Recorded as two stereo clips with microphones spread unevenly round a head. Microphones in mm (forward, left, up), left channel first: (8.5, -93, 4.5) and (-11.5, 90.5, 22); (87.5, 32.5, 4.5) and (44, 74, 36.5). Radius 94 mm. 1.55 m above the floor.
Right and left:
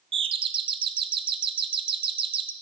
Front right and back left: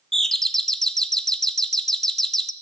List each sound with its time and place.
0.1 s a doorbell: 30° left, 0.6 m